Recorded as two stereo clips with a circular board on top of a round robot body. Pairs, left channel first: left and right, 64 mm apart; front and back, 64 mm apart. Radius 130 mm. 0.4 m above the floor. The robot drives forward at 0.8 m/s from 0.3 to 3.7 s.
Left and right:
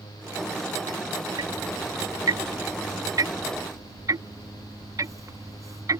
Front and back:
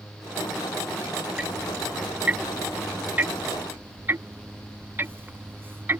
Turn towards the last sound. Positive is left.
turn(degrees=-125)